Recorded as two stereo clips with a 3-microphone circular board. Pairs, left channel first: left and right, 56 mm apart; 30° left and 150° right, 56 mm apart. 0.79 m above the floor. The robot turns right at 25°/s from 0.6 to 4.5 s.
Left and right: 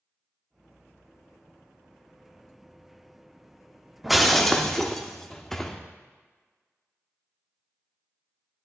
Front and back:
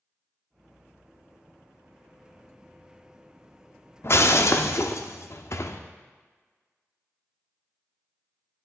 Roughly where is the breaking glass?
Ahead.